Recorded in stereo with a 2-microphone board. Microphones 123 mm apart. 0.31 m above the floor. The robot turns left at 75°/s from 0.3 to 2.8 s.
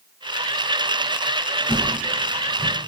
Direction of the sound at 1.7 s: 20° right (ahead or behind).